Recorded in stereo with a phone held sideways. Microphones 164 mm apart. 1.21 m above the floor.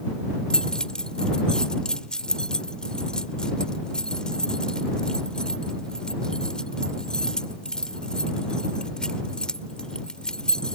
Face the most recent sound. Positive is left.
turn(degrees=5)  # may be behind; listen again after turning